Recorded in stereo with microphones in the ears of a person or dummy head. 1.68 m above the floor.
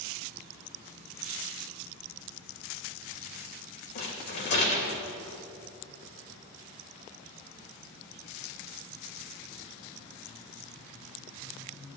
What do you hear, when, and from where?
4.0 s a rattle: 55° left (ahead or behind), 2.5 m